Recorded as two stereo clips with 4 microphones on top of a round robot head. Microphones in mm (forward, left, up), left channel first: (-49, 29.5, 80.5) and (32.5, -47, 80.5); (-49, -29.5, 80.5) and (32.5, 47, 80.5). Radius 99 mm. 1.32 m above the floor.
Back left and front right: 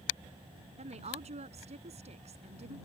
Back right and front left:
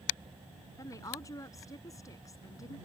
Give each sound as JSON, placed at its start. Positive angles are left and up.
{"t": 0.8, "sound": "a woman speaking", "azimuth_deg": -70}